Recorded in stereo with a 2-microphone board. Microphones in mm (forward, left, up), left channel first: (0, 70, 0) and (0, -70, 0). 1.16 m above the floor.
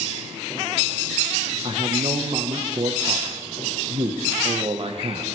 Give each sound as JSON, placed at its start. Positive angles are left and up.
{"t": 1.6, "sound": "a man speaking", "side_deg": -45, "distance_m": 1.0}